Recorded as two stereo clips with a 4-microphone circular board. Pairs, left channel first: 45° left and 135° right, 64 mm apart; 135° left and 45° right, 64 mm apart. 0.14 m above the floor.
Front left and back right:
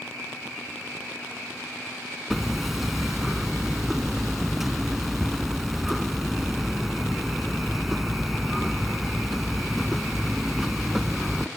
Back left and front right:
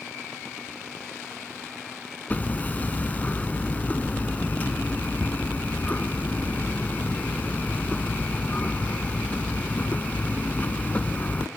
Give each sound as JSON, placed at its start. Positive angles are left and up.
{"t": 2.3, "sound": "hammering", "azimuth_deg": 140, "distance_m": 0.6}